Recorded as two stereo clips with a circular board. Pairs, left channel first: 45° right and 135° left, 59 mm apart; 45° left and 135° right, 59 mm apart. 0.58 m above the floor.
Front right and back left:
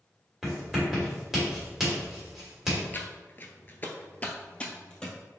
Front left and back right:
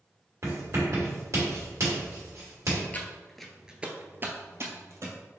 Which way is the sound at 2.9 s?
5° right.